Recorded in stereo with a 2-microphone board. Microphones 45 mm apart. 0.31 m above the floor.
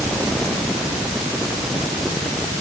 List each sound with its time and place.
Only background noise.